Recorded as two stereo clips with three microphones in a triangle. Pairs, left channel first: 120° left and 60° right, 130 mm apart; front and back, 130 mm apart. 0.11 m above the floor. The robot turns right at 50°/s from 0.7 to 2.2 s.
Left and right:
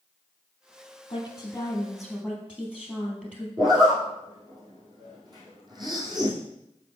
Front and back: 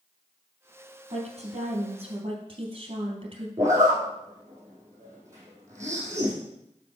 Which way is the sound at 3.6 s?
115° right.